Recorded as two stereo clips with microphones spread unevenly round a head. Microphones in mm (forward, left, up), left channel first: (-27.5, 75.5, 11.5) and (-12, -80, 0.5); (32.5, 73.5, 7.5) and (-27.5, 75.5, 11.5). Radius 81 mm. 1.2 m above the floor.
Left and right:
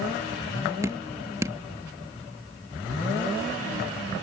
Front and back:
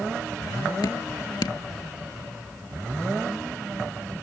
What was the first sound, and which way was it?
Dripping, 10° right.